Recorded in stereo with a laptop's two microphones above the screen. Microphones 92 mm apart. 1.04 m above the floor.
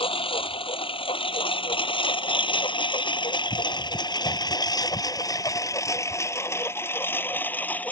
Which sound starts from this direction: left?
A lawn mower, at 0.0 s.